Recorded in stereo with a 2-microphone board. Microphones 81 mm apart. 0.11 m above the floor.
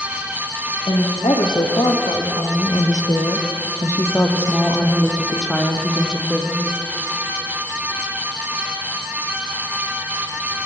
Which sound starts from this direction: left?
A woman speaking, at 0.9 s.